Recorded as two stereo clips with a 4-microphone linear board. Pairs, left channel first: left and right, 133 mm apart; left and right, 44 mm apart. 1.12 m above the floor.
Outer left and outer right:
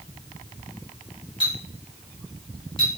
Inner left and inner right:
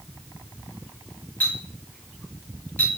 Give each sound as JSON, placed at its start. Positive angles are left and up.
{"t": 1.4, "sound": "a clink", "side_deg": 40, "distance_m": 1.1}